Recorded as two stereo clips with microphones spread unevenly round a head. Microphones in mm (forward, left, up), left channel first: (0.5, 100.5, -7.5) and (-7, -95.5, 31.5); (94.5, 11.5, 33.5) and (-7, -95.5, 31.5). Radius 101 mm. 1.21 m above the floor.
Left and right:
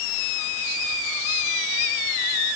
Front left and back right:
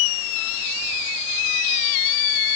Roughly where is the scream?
I don't hear a scream.